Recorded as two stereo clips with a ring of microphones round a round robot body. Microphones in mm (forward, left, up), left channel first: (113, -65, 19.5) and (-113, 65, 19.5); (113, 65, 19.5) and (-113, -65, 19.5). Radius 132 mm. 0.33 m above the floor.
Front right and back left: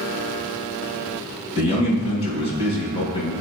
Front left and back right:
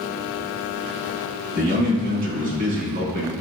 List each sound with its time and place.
1.6 s a man speaking: 95° right, 3.5 m